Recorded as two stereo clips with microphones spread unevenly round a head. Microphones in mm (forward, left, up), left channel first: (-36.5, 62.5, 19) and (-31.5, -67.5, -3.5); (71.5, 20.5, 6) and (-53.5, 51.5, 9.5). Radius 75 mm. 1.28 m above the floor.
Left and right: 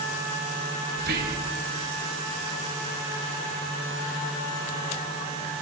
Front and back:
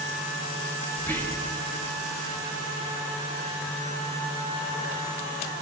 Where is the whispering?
95° right, 1.9 m.